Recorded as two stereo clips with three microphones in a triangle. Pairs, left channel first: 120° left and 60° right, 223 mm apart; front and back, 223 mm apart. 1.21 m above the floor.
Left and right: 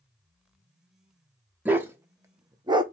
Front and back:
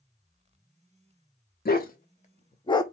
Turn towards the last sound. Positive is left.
turn(degrees=-40)